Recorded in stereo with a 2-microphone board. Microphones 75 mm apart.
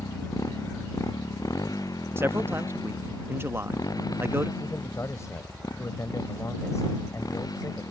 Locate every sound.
0.0 s a motorcycle: 45° left (ahead or behind); by 7.9 s 50° left (ahead or behind)
2.2 s a man speaking: 30° right (ahead or behind)
4.6 s a man speaking: 40° left (ahead or behind)